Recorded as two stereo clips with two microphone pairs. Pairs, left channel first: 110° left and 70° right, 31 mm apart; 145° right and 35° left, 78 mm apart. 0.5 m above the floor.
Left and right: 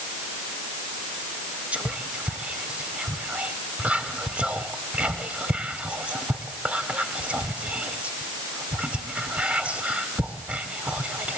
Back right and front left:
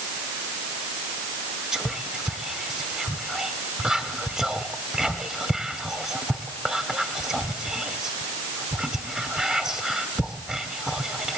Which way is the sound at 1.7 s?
45° right.